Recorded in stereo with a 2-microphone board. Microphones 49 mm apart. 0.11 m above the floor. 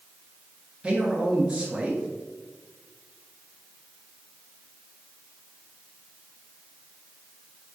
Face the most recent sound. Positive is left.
turn(degrees=-20)  # may be behind; listen again after turning